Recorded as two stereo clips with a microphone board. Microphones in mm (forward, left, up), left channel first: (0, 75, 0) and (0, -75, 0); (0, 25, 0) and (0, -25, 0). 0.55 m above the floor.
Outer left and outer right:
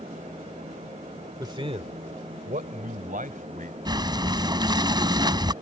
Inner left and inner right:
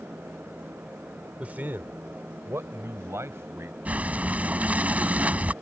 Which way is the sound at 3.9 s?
30° right (ahead or behind).